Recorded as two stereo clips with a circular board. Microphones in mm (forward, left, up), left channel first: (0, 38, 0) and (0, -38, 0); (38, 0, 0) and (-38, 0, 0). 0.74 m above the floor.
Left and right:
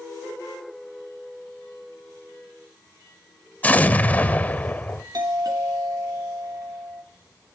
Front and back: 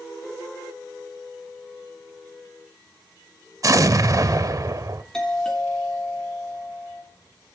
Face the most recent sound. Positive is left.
turn(degrees=-80)